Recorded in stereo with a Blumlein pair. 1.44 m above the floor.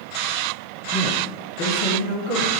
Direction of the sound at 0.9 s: 20° left.